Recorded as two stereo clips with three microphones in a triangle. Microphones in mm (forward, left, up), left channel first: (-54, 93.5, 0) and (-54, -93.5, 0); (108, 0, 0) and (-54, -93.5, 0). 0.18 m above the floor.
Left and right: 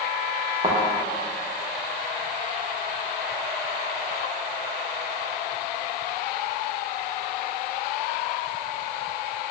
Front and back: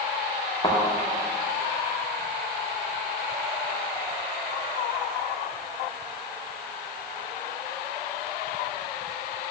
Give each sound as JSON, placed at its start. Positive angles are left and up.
{"t": 0.6, "sound": "a thud", "azimuth_deg": -35, "distance_m": 5.0}